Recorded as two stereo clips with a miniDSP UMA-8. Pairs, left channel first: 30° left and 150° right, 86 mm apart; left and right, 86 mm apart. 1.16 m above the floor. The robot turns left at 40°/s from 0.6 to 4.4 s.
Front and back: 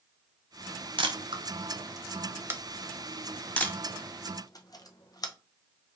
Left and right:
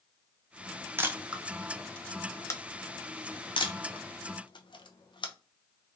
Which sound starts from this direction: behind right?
A camera shutter, at 1.0 s.